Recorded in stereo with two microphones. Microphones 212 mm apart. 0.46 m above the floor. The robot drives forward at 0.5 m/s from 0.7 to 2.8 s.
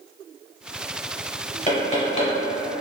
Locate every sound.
1.7 s knocking: 30° left (ahead or behind), 1.2 m; by 2.3 s 35° left (ahead or behind), 1.0 m